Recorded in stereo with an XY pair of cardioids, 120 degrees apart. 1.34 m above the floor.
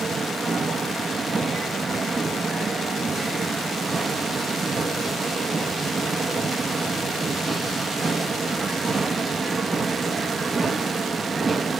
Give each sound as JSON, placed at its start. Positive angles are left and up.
{"t": 0.0, "sound": "a machine running", "azimuth_deg": -25, "distance_m": 1.2}